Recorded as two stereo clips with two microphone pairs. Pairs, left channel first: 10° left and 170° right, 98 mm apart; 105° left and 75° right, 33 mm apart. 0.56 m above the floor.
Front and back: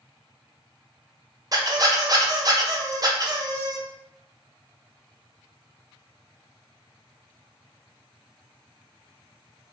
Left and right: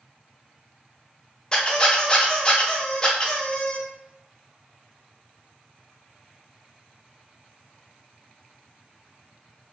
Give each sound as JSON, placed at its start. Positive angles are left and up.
{"t": 1.5, "sound": "a squeak", "azimuth_deg": 160, "distance_m": 0.5}